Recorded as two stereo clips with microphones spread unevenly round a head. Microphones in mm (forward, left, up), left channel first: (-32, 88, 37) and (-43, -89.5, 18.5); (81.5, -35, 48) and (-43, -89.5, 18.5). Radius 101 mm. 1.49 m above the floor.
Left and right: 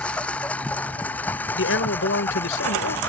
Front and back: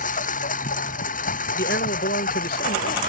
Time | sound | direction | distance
0.0 | a lawn mower | straight ahead | ?
1.6 | a man speaking | 55° left | ?